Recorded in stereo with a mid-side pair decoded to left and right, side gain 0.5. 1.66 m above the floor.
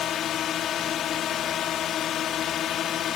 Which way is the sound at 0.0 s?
60° left.